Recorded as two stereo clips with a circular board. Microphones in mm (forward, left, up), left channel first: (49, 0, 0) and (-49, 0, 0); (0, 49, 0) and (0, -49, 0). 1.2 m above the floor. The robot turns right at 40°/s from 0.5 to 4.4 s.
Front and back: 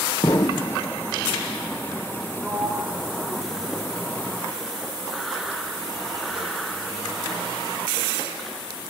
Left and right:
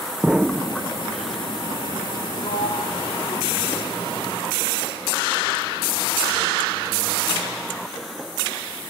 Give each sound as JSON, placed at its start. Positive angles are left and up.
{"t": 0.2, "sound": "an explosion", "azimuth_deg": -10, "distance_m": 0.8}
{"t": 2.4, "sound": "a sliding door", "azimuth_deg": 95, "distance_m": 3.0}